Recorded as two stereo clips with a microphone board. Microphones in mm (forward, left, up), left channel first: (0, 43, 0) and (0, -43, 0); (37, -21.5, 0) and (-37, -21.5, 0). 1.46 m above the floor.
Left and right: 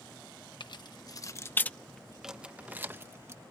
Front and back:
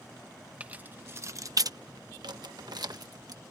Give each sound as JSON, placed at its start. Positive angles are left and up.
{"t": 0.6, "sound": "keys jangling", "azimuth_deg": 110}